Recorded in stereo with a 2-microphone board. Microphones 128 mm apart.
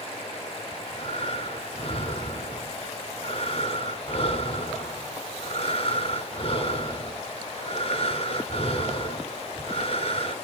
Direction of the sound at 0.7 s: 45° left (ahead or behind).